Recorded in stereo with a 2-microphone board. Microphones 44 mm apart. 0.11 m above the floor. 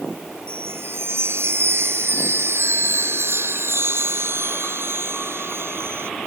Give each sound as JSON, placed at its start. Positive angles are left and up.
{"t": 0.5, "sound": "a chime", "side_deg": -60}